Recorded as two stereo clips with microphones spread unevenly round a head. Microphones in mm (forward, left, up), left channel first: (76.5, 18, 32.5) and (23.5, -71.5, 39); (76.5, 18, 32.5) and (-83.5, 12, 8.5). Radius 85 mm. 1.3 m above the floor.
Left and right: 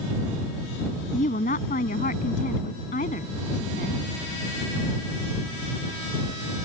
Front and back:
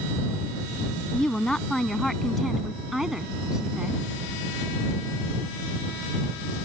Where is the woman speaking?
85° left; by 4.0 s 95° left.